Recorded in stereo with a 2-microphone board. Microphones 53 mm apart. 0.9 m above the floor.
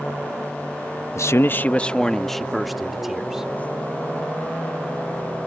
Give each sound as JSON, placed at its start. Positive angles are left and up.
{"t": 1.1, "sound": "a man speaking", "side_deg": 60}